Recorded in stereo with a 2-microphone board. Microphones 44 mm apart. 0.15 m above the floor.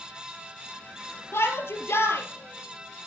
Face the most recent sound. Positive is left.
turn(degrees=70)  # may be behind; listen again after turning